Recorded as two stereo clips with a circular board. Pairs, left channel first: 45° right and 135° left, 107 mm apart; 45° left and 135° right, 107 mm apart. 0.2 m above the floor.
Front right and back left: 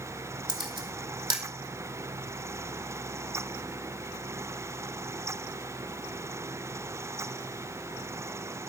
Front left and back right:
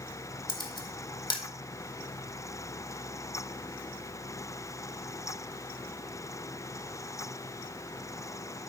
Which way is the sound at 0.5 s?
90° left.